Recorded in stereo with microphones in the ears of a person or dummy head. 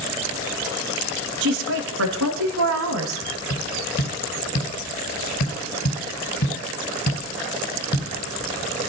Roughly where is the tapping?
Left.